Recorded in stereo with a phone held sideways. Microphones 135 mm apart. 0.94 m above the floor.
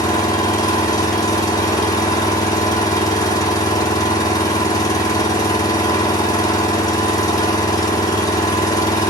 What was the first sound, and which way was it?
An engine running, 25° left (ahead or behind).